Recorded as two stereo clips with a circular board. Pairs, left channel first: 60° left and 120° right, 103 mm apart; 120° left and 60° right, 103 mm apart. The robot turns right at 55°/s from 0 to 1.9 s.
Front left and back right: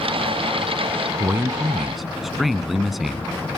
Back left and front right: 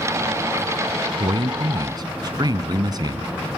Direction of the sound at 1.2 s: 70° right.